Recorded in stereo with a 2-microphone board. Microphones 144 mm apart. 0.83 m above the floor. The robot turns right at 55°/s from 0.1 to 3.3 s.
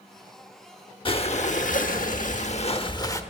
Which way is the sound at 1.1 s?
40° left.